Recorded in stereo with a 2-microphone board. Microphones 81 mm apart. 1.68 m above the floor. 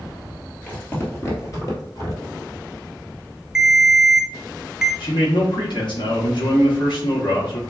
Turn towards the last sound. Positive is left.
turn(degrees=70)  # may be behind; listen again after turning